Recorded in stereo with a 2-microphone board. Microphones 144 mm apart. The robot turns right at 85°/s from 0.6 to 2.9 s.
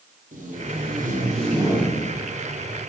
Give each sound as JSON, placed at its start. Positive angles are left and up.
{"t": 0.3, "sound": "tape being pulled", "azimuth_deg": -115, "distance_m": 3.5}